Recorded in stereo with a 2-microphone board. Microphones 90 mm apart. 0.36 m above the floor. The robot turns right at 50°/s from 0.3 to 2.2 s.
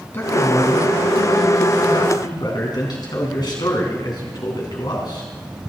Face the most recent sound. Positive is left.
turn(degrees=125)